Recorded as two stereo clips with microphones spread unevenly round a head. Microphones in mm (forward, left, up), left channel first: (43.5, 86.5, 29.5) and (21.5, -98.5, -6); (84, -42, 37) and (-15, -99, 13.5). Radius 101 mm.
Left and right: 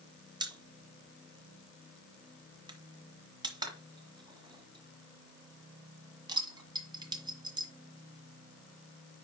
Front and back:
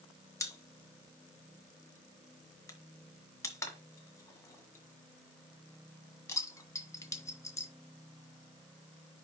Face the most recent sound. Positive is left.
turn(degrees=-25)